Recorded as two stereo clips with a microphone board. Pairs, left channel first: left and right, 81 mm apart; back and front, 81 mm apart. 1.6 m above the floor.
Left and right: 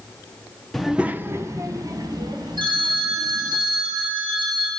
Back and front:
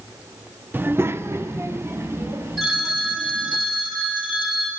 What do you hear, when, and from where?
0.7 s a child speaking: 10° left, 0.5 m; by 3.6 s 65° right, 2.5 m
2.6 s a phone ringing: 90° right, 2.5 m